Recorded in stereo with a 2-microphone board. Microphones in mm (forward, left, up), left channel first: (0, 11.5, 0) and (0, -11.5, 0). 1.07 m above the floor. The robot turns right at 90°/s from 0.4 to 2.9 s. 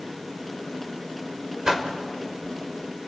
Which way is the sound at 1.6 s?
25° right (ahead or behind).